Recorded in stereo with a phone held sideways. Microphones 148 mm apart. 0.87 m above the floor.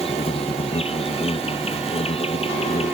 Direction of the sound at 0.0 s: 40° left (ahead or behind).